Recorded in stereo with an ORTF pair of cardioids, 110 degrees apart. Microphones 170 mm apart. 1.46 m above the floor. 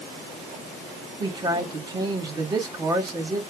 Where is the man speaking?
25° right, 2.0 m.